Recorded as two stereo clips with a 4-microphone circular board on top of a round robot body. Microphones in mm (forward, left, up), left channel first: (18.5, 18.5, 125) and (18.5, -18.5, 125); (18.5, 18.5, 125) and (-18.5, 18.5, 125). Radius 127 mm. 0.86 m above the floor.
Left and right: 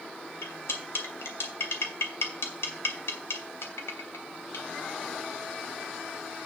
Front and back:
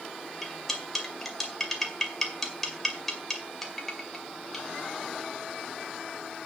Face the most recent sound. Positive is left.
turn(degrees=85)